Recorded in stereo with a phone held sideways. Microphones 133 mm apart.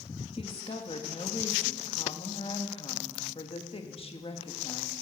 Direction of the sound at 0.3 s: 45° left (ahead or behind).